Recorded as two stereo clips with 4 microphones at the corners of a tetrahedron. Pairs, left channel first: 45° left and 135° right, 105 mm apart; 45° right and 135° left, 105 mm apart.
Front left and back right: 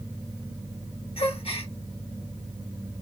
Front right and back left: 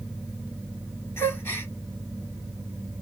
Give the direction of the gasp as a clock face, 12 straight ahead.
11 o'clock.